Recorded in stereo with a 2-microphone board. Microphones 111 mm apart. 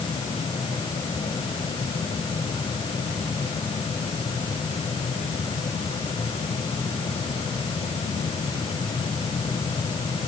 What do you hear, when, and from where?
Only background noise.